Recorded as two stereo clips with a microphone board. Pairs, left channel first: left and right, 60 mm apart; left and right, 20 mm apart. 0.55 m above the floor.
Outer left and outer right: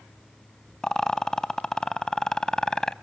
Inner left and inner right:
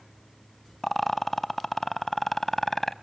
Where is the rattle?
10° left (ahead or behind), 0.6 m.